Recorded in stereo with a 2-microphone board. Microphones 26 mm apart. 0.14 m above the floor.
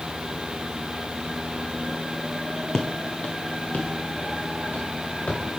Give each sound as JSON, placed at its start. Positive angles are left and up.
{"t": 2.7, "sound": "footsteps", "side_deg": 25, "distance_m": 0.7}